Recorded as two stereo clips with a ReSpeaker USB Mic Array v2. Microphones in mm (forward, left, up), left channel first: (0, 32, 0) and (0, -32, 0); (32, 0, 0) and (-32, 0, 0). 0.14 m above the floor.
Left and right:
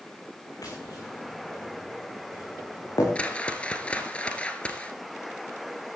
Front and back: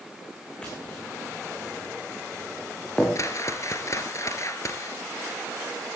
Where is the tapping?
75° left, 6 m.